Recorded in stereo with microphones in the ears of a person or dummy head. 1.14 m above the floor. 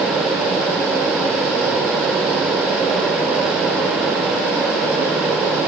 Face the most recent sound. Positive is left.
No sound to turn to.